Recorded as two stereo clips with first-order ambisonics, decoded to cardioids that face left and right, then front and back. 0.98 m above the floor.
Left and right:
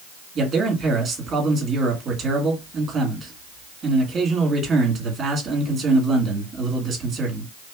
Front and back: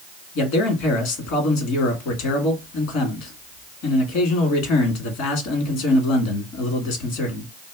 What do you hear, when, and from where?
0.3 s a man speaking: 20° right, 1.6 m